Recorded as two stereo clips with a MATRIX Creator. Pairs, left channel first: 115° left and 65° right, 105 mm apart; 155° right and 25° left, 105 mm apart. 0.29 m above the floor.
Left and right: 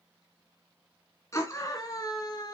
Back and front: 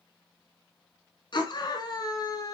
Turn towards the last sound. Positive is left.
turn(degrees=155)